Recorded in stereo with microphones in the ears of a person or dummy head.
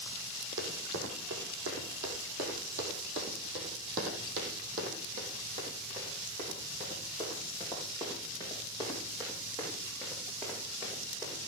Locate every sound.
0.6 s running footsteps: 70° right (ahead or behind), 4.5 m; by 11.4 s 15° right (ahead or behind), 7 m